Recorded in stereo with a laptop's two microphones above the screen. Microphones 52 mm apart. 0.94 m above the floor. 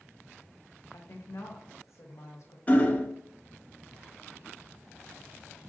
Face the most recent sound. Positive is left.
turn(degrees=30)  # may be behind; listen again after turning